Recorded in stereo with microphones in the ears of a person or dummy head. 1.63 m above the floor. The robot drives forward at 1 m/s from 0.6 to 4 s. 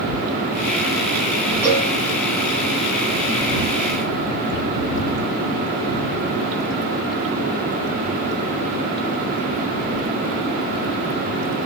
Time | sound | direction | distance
1.6 | a cowbell | 15° right (ahead or behind) | 2.5 m